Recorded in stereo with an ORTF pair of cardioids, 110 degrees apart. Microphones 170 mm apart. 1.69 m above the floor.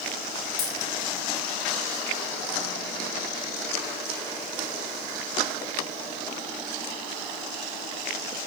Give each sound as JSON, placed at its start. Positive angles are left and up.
{"t": 0.6, "sound": "a dropped coin", "azimuth_deg": 60, "distance_m": 3.5}